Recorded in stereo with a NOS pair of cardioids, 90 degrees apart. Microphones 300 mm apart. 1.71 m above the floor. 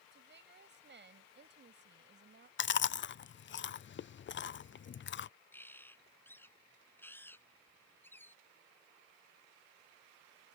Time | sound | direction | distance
0.1 | a woman speaking | 35° right | ?
2.6 | chewing | 40° left | ?
5.5 | a bird | 5° left | ?